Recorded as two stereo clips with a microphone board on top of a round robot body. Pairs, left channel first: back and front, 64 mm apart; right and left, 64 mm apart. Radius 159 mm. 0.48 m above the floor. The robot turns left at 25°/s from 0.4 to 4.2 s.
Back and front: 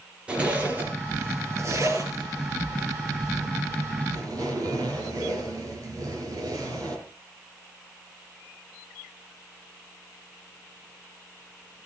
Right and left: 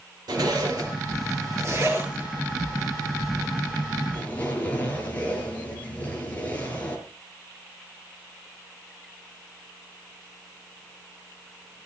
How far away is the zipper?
About 5.5 m.